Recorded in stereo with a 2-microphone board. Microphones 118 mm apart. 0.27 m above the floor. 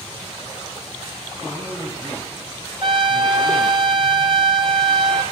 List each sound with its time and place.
1.4 s a man speaking: 20° right (ahead or behind), 3 m
2.8 s a trumpet: 45° right (ahead or behind), 1.1 m